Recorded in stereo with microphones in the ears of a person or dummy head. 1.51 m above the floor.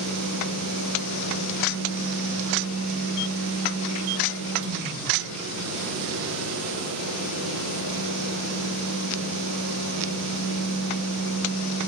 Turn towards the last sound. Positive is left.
turn(degrees=-75)  # may be behind; listen again after turning